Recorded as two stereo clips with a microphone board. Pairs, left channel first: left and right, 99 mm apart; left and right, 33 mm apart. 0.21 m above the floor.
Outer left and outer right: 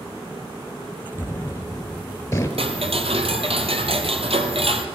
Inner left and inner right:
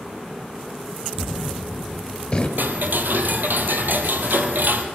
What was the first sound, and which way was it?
A gunshot, 25° left (ahead or behind).